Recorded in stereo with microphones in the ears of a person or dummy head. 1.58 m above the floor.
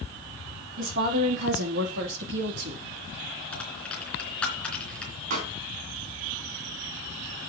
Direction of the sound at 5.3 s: 50° right (ahead or behind).